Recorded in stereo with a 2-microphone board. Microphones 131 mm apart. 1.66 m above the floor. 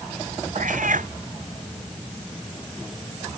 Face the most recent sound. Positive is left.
turn(degrees=-85)